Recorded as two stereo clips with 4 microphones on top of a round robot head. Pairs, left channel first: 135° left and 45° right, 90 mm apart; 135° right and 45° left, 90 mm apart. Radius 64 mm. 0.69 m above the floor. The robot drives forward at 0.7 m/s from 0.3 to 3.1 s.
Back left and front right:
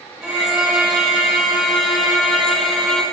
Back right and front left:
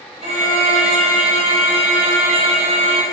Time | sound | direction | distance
0.2 | a violin | 35° left | 5 m